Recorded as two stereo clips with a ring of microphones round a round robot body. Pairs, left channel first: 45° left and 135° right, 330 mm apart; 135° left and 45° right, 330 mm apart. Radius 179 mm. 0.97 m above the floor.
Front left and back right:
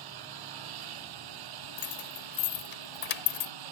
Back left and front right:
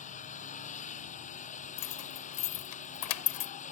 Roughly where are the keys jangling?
Left.